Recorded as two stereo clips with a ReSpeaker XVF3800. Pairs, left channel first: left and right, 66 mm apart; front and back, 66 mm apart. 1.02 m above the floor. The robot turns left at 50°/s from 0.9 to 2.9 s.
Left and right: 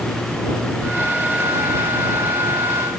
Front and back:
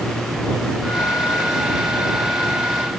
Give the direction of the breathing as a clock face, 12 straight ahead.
No breathing in this recording.